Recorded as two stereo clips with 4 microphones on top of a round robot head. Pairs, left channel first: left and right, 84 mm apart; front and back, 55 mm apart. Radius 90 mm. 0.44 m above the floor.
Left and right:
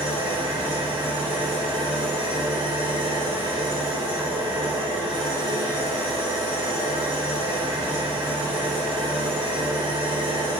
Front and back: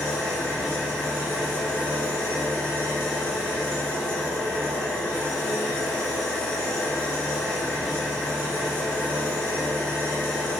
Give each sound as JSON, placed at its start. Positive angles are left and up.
{"t": 0.0, "sound": "an engine running", "azimuth_deg": -80, "distance_m": 5.5}